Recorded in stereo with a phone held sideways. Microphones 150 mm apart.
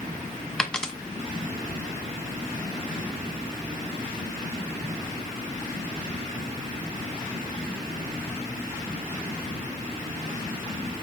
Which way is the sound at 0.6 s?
5° left (ahead or behind).